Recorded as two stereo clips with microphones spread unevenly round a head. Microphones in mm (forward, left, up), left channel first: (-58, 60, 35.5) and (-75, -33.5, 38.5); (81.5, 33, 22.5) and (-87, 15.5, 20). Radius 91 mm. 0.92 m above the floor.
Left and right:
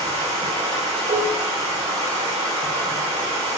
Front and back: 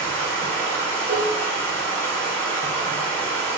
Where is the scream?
No scream in this recording.